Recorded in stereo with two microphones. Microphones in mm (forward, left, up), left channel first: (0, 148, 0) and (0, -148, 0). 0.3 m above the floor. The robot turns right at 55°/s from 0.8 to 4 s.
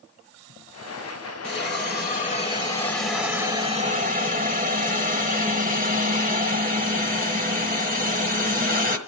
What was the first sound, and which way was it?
A hiss, 90° left.